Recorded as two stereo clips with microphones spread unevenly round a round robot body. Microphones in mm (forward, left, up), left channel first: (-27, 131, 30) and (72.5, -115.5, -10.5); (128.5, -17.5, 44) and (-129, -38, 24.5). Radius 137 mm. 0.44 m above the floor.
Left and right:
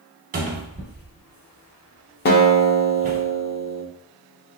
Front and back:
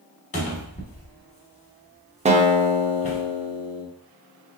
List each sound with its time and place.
0.3 s a cupboard door: 50° right, 1.2 m
2.2 s a guitar: 150° left, 0.7 m